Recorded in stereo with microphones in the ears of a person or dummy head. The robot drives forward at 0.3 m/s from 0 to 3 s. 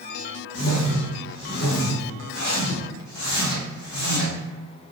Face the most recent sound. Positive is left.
turn(degrees=70)  # may be behind; listen again after turning